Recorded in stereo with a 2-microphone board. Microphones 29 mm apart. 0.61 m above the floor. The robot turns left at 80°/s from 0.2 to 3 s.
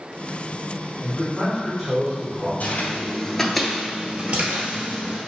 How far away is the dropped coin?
I don't hear a dropped coin.